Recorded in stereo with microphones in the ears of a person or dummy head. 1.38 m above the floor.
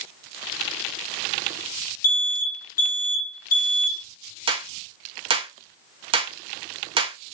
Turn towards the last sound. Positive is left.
turn(degrees=-25)  # may be behind; listen again after turning